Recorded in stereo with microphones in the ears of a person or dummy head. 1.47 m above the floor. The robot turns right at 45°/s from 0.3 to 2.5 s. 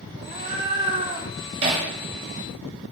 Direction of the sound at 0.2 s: 20° right (ahead or behind).